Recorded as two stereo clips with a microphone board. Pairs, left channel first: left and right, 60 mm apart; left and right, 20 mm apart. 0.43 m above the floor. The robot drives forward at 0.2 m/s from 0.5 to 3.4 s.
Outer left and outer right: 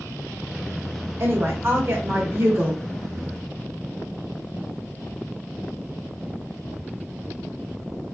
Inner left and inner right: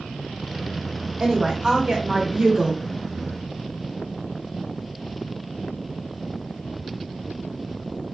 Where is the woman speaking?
45° right (ahead or behind), 0.9 m; by 2.8 s 40° right (ahead or behind), 1.0 m.